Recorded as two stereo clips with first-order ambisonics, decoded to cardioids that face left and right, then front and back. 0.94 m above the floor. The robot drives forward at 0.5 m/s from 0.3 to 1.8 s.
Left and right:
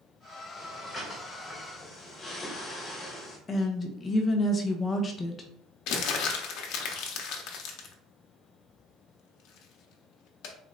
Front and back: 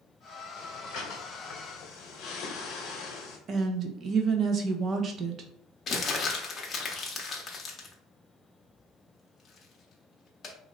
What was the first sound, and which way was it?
Breathing, 20° left.